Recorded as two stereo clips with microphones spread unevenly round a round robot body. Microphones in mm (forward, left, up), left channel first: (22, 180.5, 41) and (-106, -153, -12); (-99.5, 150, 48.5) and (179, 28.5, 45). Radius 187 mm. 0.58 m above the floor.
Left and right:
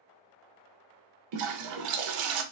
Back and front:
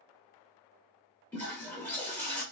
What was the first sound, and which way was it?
A toilet flushing, 120° right.